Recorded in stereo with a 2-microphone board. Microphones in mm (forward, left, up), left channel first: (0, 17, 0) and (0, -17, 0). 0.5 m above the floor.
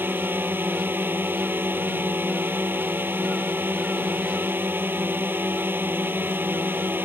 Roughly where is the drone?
Right.